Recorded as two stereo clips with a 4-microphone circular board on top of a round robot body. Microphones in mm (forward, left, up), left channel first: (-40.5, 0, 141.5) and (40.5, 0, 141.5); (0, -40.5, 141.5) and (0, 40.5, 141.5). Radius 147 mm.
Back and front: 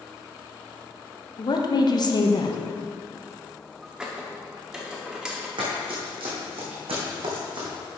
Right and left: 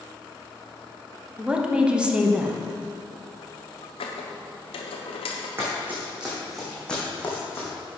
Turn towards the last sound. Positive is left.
turn(degrees=-30)